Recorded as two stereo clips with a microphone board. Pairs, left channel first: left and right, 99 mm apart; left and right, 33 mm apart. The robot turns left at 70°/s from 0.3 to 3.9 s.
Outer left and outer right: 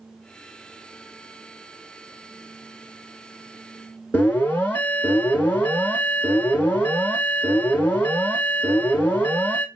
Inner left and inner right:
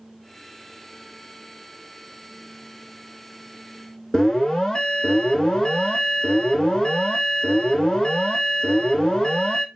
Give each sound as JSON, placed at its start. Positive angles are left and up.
{"t": 4.1, "sound": "an alarm", "side_deg": 20, "distance_m": 0.8}